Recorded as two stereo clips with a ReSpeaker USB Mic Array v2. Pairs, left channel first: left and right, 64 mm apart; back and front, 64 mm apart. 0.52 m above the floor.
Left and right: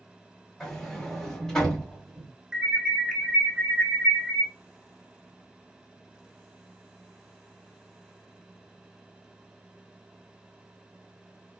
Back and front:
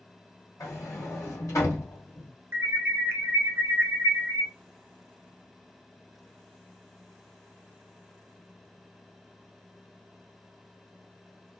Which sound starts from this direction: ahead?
An alarm, at 2.5 s.